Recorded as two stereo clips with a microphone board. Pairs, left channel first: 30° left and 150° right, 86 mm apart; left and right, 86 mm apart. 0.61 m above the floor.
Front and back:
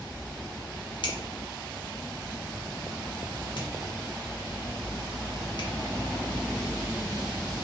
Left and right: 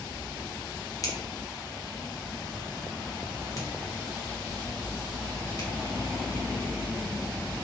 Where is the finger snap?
45° left, 0.7 m.